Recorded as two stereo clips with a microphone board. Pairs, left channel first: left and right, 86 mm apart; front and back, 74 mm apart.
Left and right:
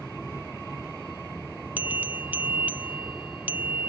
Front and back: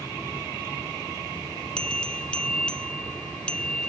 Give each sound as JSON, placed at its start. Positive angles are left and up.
{"t": 1.8, "sound": "a bell", "azimuth_deg": -60}